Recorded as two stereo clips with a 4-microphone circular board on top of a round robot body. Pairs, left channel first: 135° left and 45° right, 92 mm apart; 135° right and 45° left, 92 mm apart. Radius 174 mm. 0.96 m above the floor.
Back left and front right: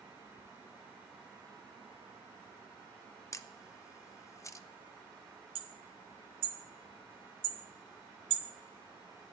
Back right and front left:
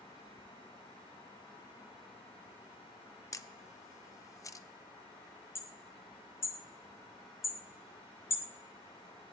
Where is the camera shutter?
Straight behind, 0.8 m.